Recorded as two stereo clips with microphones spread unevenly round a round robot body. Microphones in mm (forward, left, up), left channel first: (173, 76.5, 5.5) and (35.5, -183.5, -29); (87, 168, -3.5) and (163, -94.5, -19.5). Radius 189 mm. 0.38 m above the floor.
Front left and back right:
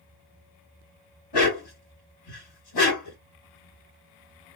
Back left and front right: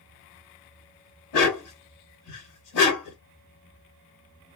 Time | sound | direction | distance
1.3 | a dog barking | 100° left | 1.0 m